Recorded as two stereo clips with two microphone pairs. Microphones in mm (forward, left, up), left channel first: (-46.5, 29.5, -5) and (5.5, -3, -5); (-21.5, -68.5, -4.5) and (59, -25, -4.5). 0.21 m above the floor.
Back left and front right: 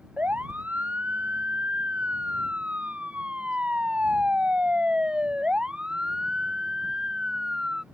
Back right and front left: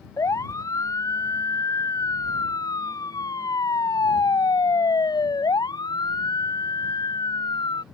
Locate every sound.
0.2 s a siren: 95° right; by 7.8 s 110° right